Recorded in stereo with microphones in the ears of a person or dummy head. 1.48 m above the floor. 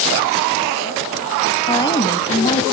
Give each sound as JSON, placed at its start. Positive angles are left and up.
{"t": 1.7, "sound": "a woman speaking", "side_deg": 20, "distance_m": 1.9}